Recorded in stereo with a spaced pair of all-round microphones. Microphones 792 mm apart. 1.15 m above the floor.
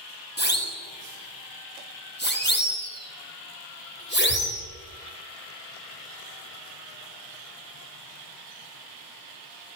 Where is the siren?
15° left (ahead or behind), 7.5 m.